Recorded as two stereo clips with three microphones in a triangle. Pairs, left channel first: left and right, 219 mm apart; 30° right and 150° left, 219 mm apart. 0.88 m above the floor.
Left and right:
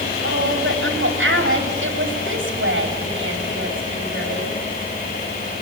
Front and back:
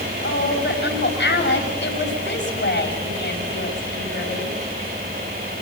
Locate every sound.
0.2 s a woman speaking: 65° right, 5.5 m